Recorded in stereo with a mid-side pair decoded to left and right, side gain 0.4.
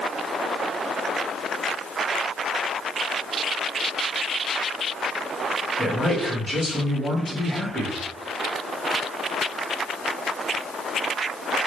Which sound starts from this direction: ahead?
A man speaking, at 5.8 s.